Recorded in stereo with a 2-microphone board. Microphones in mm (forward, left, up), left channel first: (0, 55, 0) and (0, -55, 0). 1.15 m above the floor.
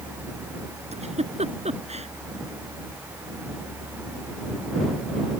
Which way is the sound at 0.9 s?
80° right.